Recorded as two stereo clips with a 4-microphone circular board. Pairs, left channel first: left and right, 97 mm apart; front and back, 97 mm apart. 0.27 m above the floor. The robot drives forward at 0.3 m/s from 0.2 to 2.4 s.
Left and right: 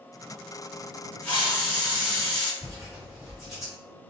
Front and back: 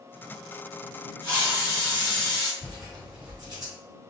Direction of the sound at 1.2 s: 150° left.